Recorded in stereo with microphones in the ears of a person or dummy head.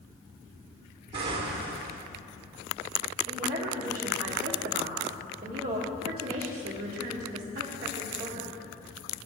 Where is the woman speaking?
30° right (ahead or behind), 1.7 m.